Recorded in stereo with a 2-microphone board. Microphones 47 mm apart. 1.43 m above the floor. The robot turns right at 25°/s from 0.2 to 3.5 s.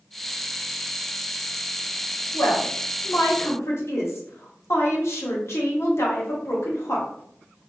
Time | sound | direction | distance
2.3 | a woman speaking | 85° left | 1.3 m